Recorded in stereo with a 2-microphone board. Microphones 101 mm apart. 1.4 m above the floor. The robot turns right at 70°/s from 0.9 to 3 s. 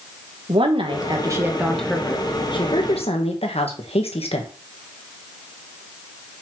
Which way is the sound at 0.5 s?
60° right.